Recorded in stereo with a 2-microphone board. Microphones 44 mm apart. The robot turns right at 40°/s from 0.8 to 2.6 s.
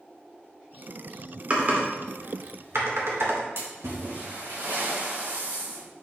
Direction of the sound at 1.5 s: 35° right (ahead or behind).